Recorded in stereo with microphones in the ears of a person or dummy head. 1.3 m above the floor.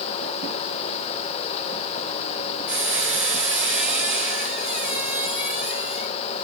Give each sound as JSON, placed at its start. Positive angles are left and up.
{"t": 2.7, "sound": "a squeak", "side_deg": -5, "distance_m": 4.5}